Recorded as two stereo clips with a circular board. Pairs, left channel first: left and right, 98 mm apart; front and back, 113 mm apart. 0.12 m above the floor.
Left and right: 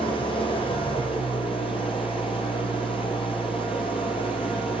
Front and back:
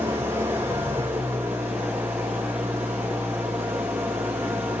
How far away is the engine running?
About 4 m.